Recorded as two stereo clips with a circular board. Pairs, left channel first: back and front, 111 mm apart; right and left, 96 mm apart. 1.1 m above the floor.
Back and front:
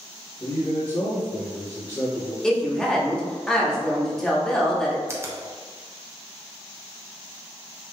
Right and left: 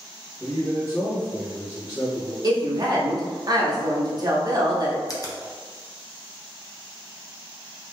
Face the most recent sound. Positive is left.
turn(degrees=-55)